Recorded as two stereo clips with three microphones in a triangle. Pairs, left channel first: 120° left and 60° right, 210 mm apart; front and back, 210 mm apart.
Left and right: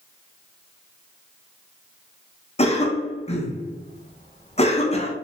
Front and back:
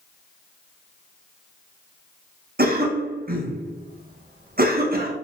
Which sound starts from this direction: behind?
A cough, at 2.6 s.